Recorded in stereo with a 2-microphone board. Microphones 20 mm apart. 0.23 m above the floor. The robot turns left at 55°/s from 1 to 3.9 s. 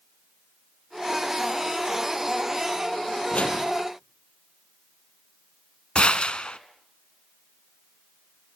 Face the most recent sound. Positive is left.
turn(degrees=60)  # may be behind; listen again after turning